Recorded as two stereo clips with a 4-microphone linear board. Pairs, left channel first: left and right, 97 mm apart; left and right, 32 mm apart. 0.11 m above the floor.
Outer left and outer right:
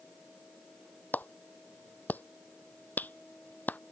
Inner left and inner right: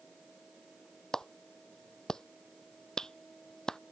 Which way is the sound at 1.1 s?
15° left (ahead or behind).